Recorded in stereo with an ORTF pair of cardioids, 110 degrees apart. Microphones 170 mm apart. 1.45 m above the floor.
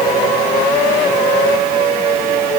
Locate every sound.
Only background noise.